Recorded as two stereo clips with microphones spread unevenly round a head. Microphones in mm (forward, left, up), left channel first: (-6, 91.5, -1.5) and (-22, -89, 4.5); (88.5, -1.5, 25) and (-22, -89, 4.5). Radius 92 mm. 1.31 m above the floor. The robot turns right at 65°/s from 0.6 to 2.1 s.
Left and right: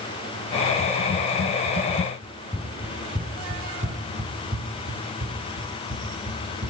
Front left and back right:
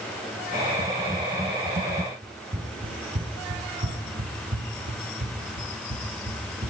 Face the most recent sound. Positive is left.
turn(degrees=-110)